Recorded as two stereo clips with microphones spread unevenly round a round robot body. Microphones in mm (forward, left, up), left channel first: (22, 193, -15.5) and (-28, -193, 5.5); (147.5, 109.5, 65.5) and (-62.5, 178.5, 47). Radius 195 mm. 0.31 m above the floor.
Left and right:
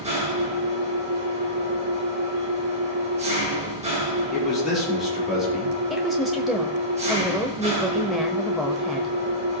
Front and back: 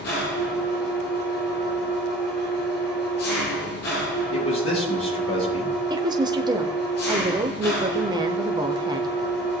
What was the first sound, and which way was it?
An engine running, 25° right.